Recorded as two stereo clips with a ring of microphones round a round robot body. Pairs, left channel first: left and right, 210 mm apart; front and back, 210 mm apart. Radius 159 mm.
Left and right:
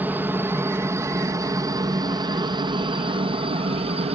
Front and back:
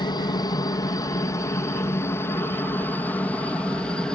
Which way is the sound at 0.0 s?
25° right.